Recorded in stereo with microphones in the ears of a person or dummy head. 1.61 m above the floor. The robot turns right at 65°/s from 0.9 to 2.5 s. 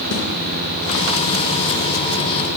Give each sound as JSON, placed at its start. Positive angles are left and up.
{"t": 0.1, "sound": "a snare drum", "side_deg": 80, "distance_m": 5.0}